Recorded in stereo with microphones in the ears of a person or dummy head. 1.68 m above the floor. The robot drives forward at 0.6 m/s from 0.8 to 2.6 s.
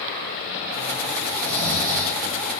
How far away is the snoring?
About 6 m.